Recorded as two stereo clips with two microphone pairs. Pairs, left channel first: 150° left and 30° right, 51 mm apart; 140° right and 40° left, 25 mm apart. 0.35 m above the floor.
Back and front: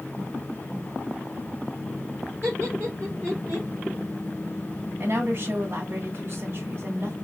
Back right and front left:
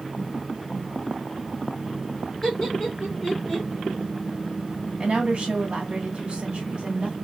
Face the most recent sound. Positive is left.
turn(degrees=-10)